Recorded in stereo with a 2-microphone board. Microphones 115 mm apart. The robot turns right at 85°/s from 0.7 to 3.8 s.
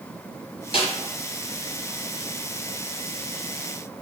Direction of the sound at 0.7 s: 55° left (ahead or behind).